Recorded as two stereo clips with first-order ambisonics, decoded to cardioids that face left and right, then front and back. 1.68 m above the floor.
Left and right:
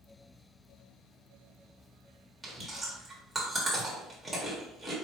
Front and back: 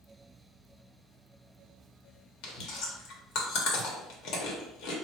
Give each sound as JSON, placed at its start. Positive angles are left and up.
{"t": 2.4, "sound": "chewing", "azimuth_deg": -5, "distance_m": 1.1}